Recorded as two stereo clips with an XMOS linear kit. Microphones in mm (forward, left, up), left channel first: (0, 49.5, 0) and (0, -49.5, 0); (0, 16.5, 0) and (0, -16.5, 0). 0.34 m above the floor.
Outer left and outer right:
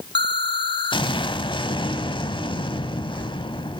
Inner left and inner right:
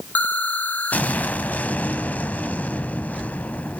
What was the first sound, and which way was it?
An explosion, 55° left (ahead or behind).